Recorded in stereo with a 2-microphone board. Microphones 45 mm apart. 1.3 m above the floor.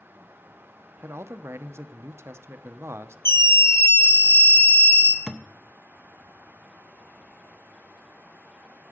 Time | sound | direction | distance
1.0 | a man speaking | 75° right (ahead or behind) | 0.6 m
3.2 | a scream | 65° left (ahead or behind) | 1.3 m
5.3 | a thud | 10° right (ahead or behind) | 0.5 m